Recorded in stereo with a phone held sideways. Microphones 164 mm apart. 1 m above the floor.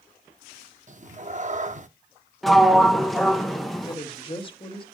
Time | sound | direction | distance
0.9 | a cat meowing | 50° right (ahead or behind) | 0.6 m
2.4 | a sliding door | centre (ahead or behind) | 0.9 m
3.9 | a woman speaking | 30° left (ahead or behind) | 1.7 m